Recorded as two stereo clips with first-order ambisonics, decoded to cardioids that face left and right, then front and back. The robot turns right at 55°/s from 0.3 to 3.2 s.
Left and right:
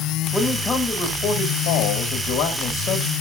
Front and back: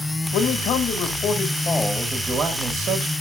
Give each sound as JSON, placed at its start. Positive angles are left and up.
{"t": 0.3, "sound": "a man speaking", "azimuth_deg": -5, "distance_m": 1.4}